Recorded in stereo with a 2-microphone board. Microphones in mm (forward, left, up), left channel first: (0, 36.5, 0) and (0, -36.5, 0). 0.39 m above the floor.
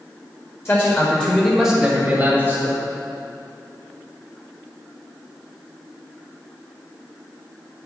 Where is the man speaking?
35° left (ahead or behind), 1.7 m; by 2.8 s 30° right (ahead or behind), 3 m.